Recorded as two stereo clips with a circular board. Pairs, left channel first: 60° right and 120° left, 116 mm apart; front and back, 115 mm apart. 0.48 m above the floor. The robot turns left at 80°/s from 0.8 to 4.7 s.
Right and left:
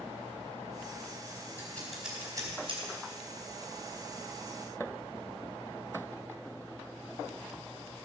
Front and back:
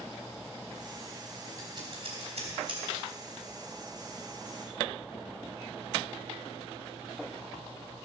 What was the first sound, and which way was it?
Scissors, 125° right.